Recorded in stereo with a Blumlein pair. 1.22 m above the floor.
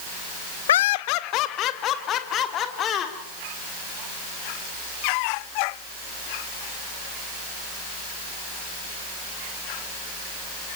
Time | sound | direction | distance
0.7 | laughter | 60° left | 0.6 m